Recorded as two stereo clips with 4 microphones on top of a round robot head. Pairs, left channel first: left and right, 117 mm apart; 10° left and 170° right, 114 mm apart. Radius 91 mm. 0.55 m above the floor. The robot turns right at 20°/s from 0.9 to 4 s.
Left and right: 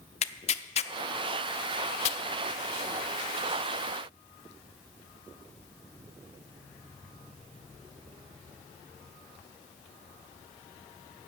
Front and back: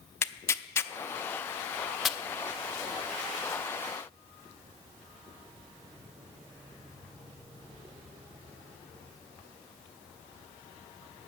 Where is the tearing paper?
75° left, 0.6 m; by 2.2 s 100° left, 0.6 m.